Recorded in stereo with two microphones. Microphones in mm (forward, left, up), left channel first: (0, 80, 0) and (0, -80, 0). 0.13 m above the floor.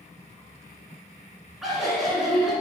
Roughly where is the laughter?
Centre.